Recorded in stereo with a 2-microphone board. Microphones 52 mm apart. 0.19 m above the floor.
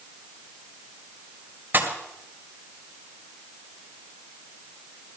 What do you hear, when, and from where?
1.7 s a pop: 40° right (ahead or behind), 2.5 m